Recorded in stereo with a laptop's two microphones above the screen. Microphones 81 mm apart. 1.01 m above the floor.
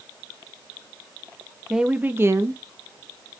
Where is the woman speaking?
5° right (ahead or behind), 0.7 m; by 3.4 s 70° right (ahead or behind), 0.9 m.